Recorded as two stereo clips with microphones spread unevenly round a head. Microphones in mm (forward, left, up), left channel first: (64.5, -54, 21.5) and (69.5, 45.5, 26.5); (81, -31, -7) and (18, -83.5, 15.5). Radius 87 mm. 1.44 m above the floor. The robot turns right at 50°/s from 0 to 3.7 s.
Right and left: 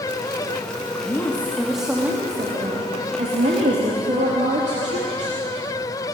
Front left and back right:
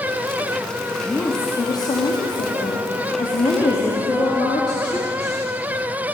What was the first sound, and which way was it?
A woman speaking, 35° right.